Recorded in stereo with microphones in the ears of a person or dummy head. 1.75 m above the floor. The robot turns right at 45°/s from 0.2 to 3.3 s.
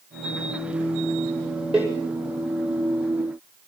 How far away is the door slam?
About 6.5 m.